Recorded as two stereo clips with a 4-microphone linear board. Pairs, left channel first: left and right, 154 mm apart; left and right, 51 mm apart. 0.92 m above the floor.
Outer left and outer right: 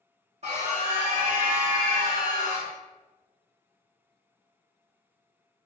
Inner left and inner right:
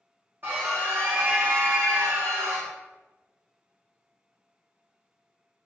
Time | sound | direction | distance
0.4 | a scream | 45° right (ahead or behind) | 1.3 m